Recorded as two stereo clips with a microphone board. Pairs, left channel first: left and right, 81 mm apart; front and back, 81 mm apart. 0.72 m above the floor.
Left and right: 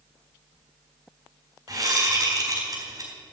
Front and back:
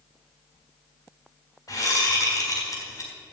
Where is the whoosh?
45° right, 4 m.